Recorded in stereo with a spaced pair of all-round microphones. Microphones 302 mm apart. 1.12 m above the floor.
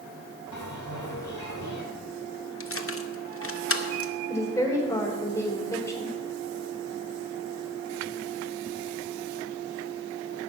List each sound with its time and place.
0.5 s a bell: 70° left (ahead or behind), 3 m
2.6 s keys jangling: 45° left (ahead or behind), 0.8 m
4.3 s a woman speaking: 10° left (ahead or behind), 3.5 m